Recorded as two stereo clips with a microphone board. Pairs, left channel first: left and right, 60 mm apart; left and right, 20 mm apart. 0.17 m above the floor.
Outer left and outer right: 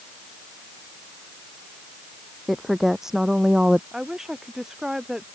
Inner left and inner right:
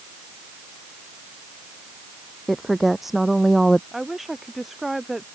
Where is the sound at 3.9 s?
10° right (ahead or behind).